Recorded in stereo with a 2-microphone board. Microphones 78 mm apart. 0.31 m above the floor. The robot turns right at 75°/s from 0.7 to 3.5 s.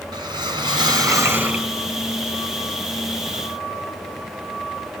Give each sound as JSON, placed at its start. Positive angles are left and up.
{"t": 0.1, "sound": "a whoosh", "azimuth_deg": -80, "distance_m": 3.5}